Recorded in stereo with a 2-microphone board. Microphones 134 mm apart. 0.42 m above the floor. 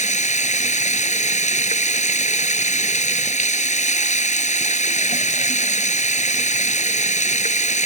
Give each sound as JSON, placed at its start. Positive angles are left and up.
{"t": 0.0, "sound": "running water", "side_deg": 70}